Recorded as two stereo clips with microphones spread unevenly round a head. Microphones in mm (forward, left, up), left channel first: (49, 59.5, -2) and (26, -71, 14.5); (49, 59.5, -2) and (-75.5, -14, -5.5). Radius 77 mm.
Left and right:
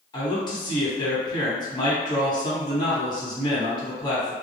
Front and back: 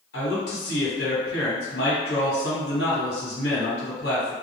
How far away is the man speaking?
About 1.3 m.